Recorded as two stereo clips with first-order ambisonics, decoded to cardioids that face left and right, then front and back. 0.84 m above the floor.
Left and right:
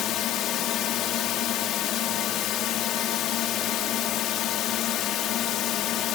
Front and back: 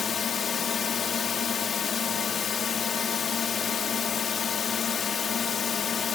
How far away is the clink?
No clink in this recording.